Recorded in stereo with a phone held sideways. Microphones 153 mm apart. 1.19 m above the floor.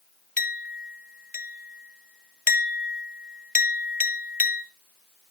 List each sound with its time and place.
0.4 s a clink: 55° left (ahead or behind), 0.9 m